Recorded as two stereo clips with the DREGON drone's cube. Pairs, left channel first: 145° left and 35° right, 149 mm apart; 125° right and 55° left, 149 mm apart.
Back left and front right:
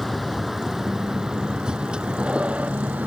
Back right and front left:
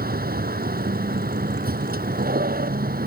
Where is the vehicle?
55° left; by 3.1 s 45° left.